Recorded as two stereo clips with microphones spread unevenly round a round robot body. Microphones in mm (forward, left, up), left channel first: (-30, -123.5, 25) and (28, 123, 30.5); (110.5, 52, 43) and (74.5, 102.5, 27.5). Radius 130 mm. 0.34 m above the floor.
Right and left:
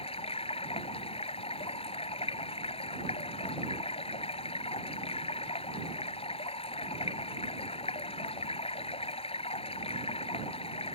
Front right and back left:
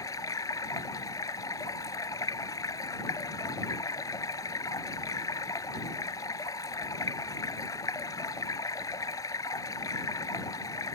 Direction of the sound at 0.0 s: 35° right.